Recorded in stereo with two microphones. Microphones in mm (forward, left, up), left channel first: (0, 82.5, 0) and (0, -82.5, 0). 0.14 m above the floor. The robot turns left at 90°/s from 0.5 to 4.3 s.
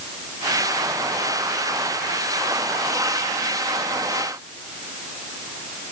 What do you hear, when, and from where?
Only background noise.